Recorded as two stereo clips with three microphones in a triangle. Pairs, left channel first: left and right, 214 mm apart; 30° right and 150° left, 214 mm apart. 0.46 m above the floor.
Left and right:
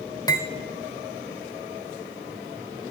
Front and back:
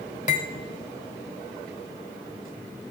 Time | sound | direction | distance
0.3 | cutlery clinking | 20° left | 1.1 m